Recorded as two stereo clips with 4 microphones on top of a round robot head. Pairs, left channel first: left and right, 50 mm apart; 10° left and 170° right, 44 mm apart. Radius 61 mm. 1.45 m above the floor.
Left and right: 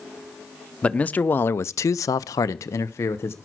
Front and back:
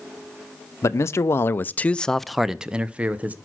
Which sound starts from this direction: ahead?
A man speaking, at 0.8 s.